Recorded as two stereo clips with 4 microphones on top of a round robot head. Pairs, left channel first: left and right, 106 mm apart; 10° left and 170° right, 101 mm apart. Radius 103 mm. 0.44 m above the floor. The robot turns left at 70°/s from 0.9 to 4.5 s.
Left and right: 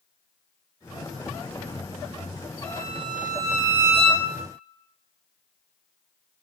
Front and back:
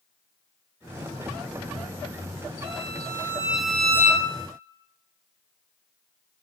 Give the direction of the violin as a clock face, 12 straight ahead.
6 o'clock.